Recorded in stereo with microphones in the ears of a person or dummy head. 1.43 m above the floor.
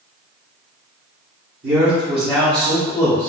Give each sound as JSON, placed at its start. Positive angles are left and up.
{"t": 1.6, "sound": "a man speaking", "side_deg": -35, "distance_m": 1.2}